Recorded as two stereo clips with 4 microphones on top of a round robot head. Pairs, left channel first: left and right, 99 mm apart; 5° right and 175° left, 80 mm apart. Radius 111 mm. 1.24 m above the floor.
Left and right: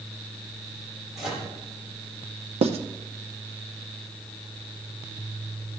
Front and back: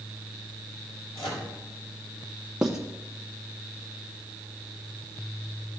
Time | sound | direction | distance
1.1 | a microwave | 5° right | 4 m
2.6 | writing | 100° right | 0.7 m